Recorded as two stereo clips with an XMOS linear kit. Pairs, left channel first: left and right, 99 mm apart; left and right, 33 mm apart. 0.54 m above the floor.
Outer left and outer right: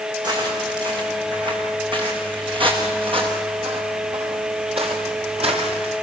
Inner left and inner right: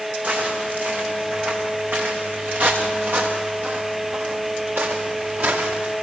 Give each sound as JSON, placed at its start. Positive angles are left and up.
{"t": 0.2, "sound": "footsteps", "side_deg": -45, "distance_m": 10.0}